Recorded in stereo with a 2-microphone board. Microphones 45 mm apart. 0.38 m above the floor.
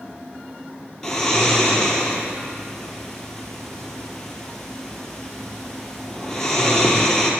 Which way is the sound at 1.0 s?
15° left (ahead or behind).